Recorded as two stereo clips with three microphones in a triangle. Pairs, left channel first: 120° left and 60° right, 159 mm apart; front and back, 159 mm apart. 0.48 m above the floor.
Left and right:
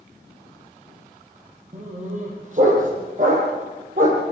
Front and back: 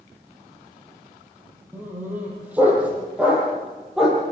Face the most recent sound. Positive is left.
turn(degrees=-90)